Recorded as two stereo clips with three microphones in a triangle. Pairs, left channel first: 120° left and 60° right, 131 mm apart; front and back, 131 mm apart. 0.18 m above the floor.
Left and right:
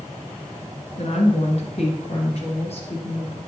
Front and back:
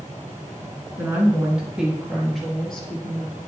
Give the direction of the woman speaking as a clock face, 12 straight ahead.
8 o'clock.